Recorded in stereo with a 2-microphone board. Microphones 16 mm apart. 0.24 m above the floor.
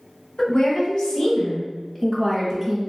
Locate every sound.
0.4 s a woman speaking: 55° left (ahead or behind), 1.7 m; by 2.9 s 5° left (ahead or behind), 1.2 m